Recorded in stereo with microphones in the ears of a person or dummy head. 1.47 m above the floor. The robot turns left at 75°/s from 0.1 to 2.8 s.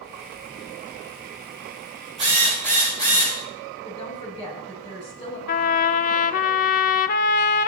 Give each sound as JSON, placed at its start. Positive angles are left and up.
{"t": 2.2, "sound": "a drill", "azimuth_deg": -150, "distance_m": 7.5}
{"t": 3.8, "sound": "a woman speaking", "side_deg": 25, "distance_m": 8.5}
{"t": 5.5, "sound": "a trumpet", "side_deg": 45, "distance_m": 0.6}